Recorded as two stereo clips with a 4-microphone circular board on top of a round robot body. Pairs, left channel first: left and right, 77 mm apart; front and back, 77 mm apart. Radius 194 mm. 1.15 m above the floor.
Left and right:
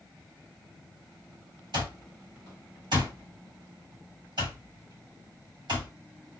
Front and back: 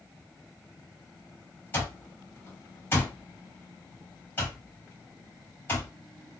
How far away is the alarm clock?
About 1.5 m.